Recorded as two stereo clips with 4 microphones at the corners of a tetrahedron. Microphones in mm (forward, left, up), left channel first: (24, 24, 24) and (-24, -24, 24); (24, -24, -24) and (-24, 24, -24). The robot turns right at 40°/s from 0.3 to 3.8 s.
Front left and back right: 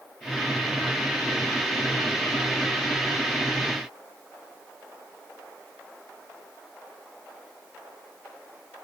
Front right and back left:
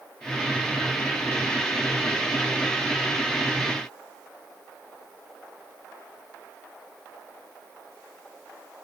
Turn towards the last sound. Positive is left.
No sound to turn to.